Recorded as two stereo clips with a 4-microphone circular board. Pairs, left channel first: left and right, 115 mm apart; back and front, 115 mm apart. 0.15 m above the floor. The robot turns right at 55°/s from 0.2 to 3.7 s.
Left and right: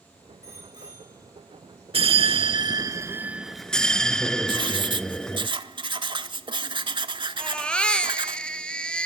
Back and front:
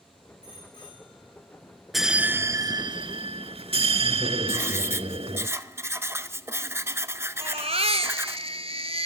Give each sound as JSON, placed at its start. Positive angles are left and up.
{"t": 0.4, "sound": "a bicycle bell", "azimuth_deg": -150, "distance_m": 7.5}
{"t": 1.9, "sound": "a bell", "azimuth_deg": -90, "distance_m": 0.5}
{"t": 4.5, "sound": "writing", "azimuth_deg": -60, "distance_m": 0.6}
{"t": 7.4, "sound": "a baby crying", "azimuth_deg": 10, "distance_m": 0.9}